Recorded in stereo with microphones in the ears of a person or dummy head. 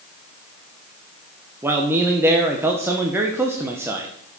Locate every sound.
1.6 s a man speaking: 10° right (ahead or behind), 1.0 m